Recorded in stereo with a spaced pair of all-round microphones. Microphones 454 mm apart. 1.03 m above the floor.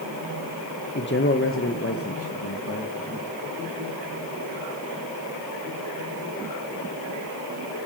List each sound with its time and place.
0.9 s a man speaking: 25° left (ahead or behind), 0.8 m; by 3.4 s 30° left (ahead or behind), 2 m